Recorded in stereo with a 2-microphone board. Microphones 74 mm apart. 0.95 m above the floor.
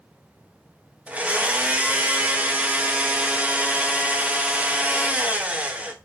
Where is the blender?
15° right (ahead or behind), 0.7 m.